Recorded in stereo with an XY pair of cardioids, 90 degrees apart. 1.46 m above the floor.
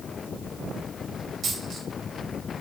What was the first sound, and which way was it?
A dropped coin, 65° right.